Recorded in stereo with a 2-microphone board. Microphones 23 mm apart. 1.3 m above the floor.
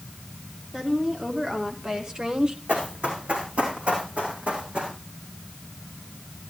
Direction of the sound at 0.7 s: 15° right (ahead or behind).